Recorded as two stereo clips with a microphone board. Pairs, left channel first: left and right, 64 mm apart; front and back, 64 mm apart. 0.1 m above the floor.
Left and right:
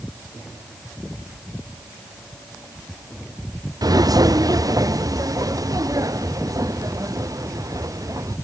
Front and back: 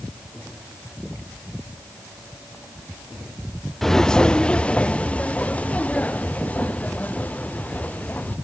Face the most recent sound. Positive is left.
turn(degrees=-65)